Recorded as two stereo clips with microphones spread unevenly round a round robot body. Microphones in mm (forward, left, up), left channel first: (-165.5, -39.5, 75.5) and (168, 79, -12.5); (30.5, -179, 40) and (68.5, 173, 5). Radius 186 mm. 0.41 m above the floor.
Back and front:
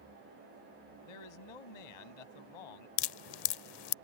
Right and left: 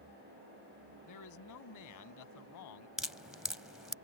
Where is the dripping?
170° left.